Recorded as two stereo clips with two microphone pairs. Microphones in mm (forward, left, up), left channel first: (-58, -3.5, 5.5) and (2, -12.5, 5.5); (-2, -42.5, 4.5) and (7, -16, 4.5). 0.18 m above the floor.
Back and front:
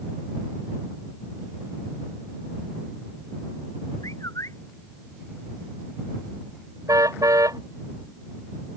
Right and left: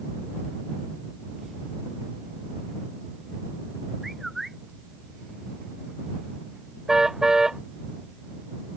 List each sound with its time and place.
4.0 s a bird: 160° left
6.9 s a car horn: straight ahead